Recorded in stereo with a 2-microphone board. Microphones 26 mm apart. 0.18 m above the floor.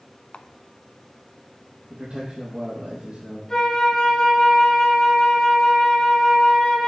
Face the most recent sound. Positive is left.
turn(degrees=15)  # may be behind; listen again after turning